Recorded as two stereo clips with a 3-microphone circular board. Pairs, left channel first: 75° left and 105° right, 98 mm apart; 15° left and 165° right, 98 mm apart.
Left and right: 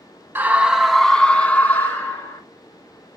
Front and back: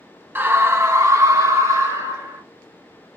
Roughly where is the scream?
Behind right.